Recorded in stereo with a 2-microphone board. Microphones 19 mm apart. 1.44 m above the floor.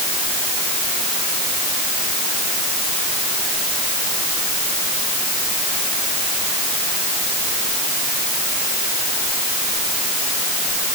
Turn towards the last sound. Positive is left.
No sound to turn to.